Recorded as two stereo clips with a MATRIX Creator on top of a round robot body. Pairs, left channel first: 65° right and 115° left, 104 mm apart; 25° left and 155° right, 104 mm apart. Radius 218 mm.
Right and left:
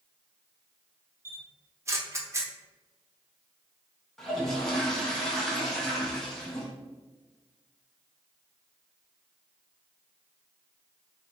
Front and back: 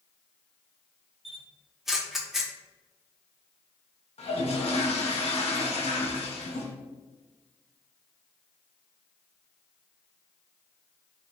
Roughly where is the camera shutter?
Behind left.